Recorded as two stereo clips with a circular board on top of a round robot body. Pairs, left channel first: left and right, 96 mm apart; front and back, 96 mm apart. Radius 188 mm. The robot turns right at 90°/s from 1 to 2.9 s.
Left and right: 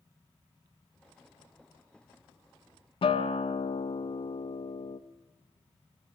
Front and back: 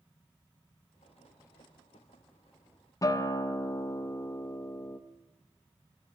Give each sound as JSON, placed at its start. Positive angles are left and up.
{"t": 3.0, "sound": "a guitar", "azimuth_deg": 60, "distance_m": 0.6}